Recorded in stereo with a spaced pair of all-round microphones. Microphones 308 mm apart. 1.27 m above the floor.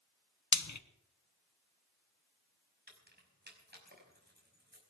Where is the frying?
65° left (ahead or behind), 0.9 m.